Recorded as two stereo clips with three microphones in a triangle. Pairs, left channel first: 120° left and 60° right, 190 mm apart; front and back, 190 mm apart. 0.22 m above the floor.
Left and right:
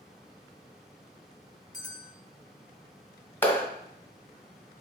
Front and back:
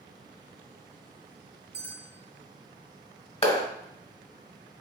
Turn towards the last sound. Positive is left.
turn(degrees=45)